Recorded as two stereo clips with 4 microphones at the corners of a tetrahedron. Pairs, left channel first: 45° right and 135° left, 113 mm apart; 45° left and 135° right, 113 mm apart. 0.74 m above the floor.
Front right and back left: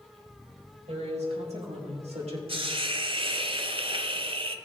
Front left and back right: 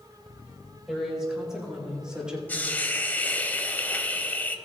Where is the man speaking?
140° left, 4 m.